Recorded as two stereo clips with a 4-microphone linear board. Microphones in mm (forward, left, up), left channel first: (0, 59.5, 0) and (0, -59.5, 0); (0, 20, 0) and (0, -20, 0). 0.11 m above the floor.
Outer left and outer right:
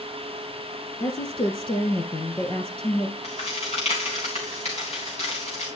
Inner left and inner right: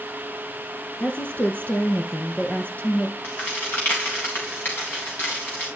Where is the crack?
65° left (ahead or behind), 3.5 m.